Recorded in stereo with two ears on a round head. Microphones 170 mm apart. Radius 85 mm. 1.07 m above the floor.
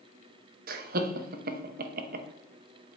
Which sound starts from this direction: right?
Laughter, at 0.7 s.